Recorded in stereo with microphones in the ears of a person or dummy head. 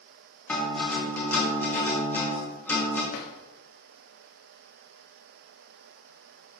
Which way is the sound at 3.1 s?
50° left (ahead or behind).